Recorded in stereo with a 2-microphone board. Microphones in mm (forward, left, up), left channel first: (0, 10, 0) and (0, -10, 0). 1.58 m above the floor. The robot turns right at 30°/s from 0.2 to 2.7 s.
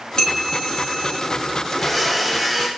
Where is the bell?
50° left, 1.4 m; by 1.2 s 80° left, 1.4 m.